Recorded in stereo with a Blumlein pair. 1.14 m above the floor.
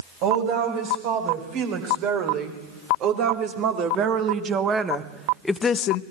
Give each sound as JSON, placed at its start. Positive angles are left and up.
{"t": 0.2, "sound": "a woman speaking", "azimuth_deg": -45, "distance_m": 6.0}